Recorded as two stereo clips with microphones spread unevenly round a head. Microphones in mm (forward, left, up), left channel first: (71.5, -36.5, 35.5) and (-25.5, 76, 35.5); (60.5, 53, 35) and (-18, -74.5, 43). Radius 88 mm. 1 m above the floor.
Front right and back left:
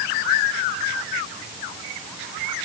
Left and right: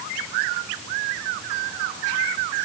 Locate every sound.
Only background noise.